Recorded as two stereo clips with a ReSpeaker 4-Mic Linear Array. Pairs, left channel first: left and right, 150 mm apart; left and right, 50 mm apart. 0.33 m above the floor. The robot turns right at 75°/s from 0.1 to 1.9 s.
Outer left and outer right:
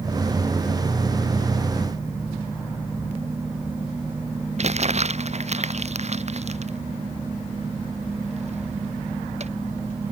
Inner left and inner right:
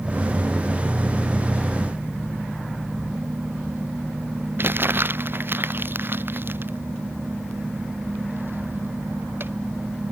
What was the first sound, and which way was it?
Crumpling, 50° right (ahead or behind).